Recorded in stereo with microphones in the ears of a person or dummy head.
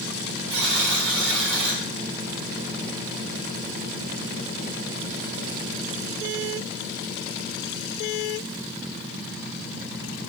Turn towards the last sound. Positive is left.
turn(degrees=-70)  # may be behind; listen again after turning